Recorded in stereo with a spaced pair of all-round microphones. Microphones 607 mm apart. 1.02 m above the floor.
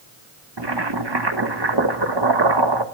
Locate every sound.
0.6 s boiling: 45° right (ahead or behind), 1.4 m